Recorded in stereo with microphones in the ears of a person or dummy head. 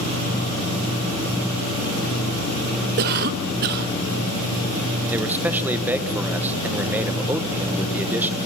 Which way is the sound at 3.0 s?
50° right (ahead or behind).